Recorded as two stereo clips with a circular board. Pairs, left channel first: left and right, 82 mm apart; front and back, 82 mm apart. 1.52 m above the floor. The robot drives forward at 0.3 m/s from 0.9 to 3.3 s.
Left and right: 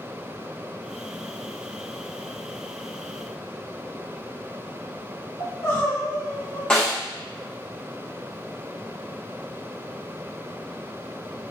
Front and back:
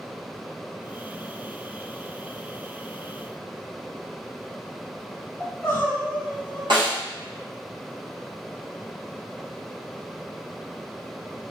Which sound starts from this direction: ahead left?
Crying, at 5.4 s.